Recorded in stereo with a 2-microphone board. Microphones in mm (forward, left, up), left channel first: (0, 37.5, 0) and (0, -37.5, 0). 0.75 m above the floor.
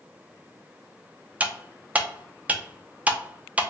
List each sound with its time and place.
1.4 s cutlery clinking: 20° right (ahead or behind), 0.6 m